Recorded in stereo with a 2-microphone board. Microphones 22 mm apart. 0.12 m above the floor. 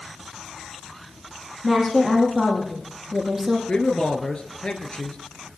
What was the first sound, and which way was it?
A woman speaking, 5° left (ahead or behind).